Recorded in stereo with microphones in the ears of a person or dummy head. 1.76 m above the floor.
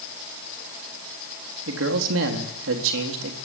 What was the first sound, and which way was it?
A man speaking, 80° right.